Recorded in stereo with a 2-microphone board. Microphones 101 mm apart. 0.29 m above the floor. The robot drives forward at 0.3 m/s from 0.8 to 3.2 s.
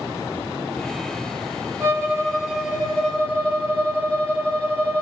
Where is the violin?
15° right (ahead or behind), 6 m.